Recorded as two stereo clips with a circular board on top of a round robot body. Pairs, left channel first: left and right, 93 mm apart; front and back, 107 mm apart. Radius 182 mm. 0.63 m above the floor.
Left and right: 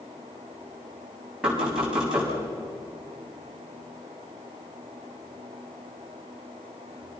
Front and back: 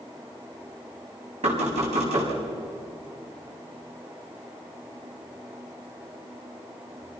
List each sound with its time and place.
1.4 s knocking: 175° right, 6 m